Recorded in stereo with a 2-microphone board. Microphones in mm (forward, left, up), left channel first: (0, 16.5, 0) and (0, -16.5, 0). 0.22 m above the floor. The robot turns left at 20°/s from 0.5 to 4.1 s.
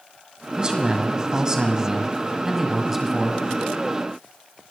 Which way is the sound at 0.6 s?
25° right (ahead or behind).